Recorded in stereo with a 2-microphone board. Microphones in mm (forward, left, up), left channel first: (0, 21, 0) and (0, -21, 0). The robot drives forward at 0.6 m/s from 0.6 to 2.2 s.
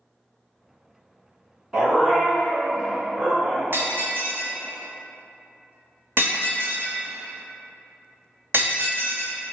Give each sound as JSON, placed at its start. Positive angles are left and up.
{"t": 1.7, "sound": "a dog barking", "side_deg": -15, "distance_m": 1.2}
{"t": 3.7, "sound": "breaking glass", "side_deg": -60, "distance_m": 0.9}